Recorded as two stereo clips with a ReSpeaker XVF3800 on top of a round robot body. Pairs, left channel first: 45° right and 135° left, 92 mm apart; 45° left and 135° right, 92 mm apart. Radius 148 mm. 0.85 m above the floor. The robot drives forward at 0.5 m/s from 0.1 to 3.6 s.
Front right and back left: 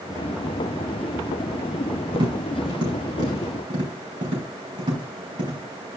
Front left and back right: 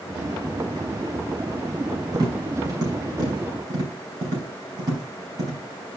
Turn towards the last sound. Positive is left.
turn(degrees=180)